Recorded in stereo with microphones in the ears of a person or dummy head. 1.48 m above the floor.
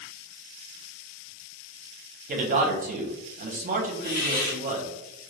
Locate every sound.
2.3 s a man speaking: 40° right (ahead or behind), 0.6 m
4.0 s a hiss: 45° left (ahead or behind), 1.4 m